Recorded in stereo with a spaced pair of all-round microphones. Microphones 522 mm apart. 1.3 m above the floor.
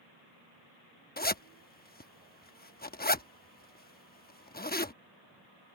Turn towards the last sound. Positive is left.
turn(degrees=20)  # may be behind; listen again after turning